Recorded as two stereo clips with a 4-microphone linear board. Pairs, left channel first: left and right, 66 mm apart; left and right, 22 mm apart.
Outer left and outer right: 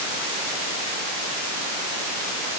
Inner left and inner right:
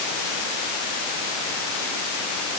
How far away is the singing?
No singing in this recording.